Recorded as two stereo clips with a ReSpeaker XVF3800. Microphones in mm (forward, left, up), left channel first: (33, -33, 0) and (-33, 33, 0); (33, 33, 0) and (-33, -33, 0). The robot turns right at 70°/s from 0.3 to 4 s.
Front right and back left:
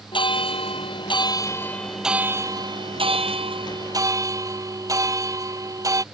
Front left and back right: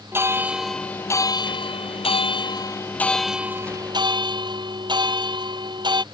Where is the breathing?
No breathing in this recording.